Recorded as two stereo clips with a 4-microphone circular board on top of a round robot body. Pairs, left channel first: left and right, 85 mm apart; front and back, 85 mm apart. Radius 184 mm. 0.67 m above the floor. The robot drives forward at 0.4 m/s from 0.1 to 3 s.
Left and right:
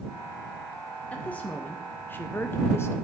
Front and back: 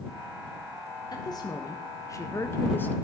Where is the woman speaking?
20° left, 1.2 m; by 2.9 s 55° left, 0.8 m.